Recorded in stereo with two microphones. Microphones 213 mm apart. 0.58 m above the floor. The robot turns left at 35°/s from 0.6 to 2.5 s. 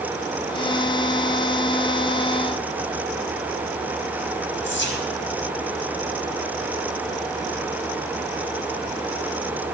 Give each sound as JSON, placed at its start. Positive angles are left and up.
{"t": 4.6, "sound": "whispering", "side_deg": 65, "distance_m": 4.0}